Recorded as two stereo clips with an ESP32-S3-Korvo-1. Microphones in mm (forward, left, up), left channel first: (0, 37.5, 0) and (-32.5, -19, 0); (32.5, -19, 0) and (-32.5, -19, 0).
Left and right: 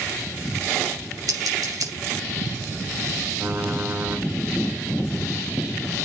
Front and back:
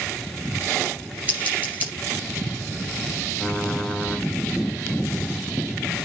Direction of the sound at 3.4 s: 80° right.